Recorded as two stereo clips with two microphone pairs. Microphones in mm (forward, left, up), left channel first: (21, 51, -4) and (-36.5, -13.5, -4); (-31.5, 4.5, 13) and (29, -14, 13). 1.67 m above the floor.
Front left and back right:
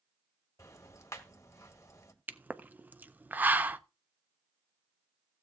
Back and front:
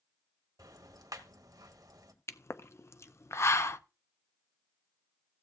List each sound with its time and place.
0.6 s ticking: 5° right, 1.5 m
2.3 s a pop: 165° left, 0.5 m